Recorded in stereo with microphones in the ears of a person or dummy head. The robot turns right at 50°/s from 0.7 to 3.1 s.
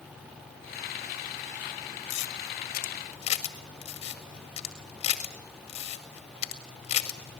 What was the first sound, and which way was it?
A camera shutter, 75° left (ahead or behind).